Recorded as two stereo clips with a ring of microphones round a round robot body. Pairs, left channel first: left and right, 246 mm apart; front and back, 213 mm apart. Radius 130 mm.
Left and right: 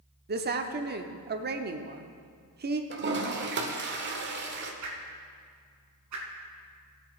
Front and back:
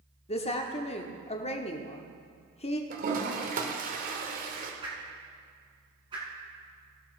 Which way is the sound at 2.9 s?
130° right.